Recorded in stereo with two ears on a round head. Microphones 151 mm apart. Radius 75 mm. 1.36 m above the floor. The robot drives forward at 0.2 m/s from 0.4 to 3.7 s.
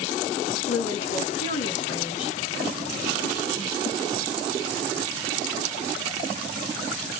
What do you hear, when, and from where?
0.7 s a woman speaking: 70° left (ahead or behind), 1.6 m; by 2.4 s 75° left (ahead or behind), 1.5 m